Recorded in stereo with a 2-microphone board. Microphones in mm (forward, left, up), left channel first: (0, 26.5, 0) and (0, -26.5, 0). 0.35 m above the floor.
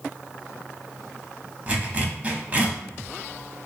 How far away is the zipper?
About 0.7 m.